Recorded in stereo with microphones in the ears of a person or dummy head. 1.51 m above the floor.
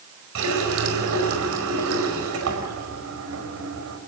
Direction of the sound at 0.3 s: 85° right.